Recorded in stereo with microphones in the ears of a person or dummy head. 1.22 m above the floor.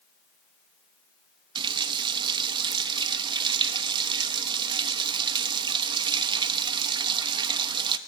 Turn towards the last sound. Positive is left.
turn(degrees=-25)  # may be behind; listen again after turning